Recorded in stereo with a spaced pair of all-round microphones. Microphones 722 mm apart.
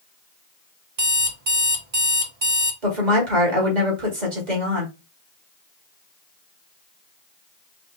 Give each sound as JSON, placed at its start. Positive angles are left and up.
{"t": 1.0, "sound": "an alarm clock", "side_deg": -45, "distance_m": 1.1}
{"t": 2.8, "sound": "a woman speaking", "side_deg": -70, "distance_m": 2.0}